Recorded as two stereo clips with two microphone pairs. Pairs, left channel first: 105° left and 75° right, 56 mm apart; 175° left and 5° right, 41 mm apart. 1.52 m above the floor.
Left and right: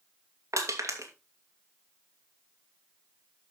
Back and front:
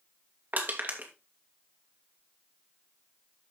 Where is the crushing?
50° right, 2.5 m.